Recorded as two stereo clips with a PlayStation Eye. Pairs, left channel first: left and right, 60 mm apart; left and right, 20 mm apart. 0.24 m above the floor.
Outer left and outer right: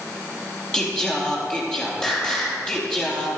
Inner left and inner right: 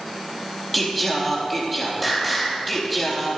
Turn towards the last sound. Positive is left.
turn(degrees=15)  # may be behind; listen again after turning